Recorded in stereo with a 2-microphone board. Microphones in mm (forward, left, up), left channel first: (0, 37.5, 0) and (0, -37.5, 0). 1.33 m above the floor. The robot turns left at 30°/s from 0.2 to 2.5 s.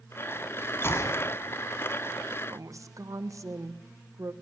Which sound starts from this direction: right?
A woman speaking, at 2.5 s.